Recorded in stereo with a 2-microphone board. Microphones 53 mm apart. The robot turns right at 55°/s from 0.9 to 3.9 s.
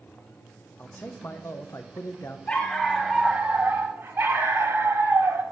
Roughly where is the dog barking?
Behind left.